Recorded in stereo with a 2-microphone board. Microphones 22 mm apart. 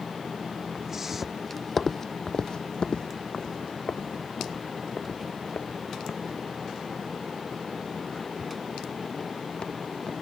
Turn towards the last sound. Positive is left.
turn(degrees=70)  # may be behind; listen again after turning